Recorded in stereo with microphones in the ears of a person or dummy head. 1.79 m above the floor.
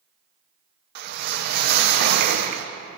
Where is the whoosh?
50° right (ahead or behind), 0.7 m.